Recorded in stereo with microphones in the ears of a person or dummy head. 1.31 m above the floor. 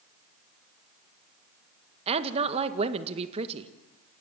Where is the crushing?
I don't hear crushing.